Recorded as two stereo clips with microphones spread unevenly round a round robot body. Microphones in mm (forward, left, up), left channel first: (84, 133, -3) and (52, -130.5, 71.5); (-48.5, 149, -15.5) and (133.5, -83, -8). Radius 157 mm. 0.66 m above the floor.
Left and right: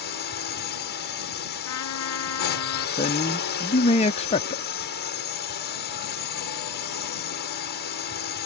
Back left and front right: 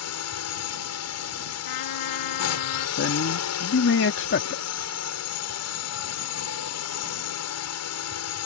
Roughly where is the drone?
Behind left.